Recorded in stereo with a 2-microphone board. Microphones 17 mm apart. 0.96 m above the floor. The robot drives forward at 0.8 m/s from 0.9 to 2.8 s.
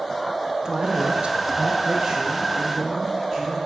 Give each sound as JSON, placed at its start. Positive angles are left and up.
{"t": 0.7, "sound": "a man speaking", "side_deg": -45, "distance_m": 0.7}